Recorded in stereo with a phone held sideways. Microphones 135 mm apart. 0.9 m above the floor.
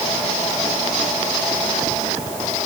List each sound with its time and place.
Only background noise.